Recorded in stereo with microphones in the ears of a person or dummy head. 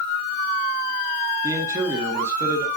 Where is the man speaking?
10° right (ahead or behind), 1.6 m.